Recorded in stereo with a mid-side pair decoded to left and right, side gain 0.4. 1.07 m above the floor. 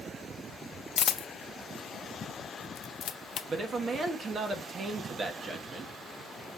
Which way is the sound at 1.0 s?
60° left.